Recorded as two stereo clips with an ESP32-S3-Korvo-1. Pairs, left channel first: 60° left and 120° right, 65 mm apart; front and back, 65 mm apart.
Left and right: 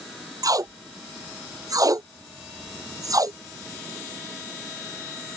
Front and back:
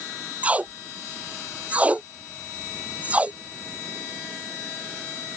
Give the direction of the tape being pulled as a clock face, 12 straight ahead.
4 o'clock.